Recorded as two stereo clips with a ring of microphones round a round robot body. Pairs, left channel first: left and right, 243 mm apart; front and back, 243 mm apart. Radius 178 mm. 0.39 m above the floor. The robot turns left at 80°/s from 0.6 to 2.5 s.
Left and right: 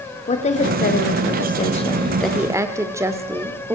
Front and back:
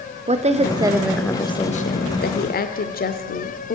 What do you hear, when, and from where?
0.3 s a woman speaking: 135° left, 1.1 m; by 3.8 s 20° right, 1.1 m